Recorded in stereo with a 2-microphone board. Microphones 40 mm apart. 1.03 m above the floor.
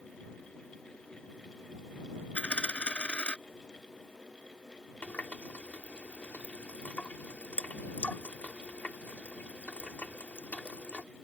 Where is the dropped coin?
25° left (ahead or behind).